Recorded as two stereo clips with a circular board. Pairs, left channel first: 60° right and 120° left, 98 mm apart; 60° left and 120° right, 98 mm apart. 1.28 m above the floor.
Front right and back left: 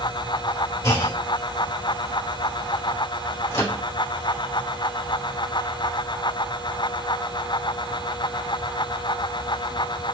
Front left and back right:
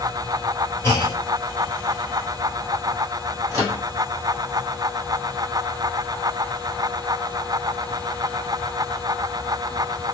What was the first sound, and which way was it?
A clunk, 5° right.